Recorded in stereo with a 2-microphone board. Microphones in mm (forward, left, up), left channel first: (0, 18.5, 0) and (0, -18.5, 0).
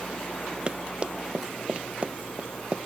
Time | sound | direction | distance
0.7 | running footsteps | 25° right (ahead or behind) | ?